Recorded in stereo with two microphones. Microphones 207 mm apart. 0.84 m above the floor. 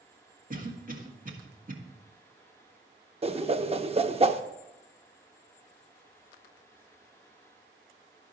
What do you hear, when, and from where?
0.5 s a cough: 40° right (ahead or behind), 1.8 m
3.2 s a whoosh: 30° right (ahead or behind), 0.6 m